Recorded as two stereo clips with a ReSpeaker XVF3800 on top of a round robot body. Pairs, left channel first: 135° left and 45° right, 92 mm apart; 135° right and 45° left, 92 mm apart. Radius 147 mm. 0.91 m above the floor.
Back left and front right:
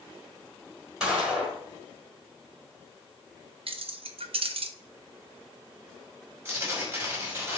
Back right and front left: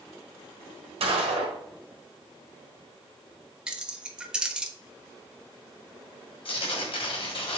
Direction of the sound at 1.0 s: 35° left.